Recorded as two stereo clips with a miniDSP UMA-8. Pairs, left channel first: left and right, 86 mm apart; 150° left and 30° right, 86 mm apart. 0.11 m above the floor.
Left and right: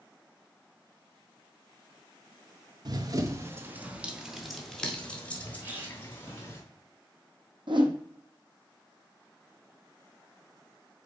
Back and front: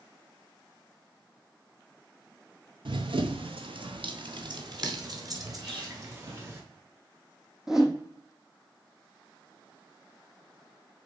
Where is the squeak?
25° right, 2.5 m.